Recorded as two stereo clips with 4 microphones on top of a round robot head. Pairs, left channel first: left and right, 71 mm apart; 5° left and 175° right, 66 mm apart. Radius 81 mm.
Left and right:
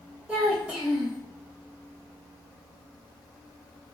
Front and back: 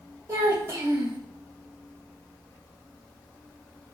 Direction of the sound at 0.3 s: 155° right.